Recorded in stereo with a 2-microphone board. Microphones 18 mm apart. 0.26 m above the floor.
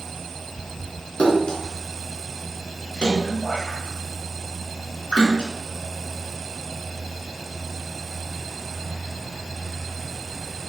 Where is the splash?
70° left (ahead or behind), 4 m.